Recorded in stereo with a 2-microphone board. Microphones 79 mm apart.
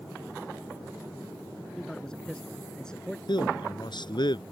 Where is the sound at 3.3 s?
65° left (ahead or behind).